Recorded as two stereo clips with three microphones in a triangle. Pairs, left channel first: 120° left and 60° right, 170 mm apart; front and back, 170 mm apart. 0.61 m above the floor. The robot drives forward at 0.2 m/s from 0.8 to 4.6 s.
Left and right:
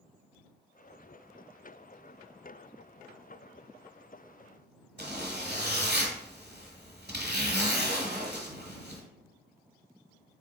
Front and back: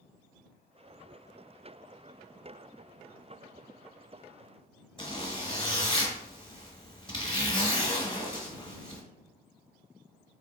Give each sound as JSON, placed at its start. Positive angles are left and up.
{"t": 5.0, "sound": "a zipper", "azimuth_deg": -55, "distance_m": 1.4}